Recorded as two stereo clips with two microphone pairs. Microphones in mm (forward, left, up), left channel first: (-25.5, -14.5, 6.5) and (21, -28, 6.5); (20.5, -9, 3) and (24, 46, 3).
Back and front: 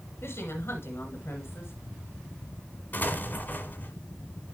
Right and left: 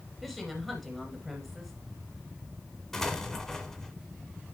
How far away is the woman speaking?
About 1.6 m.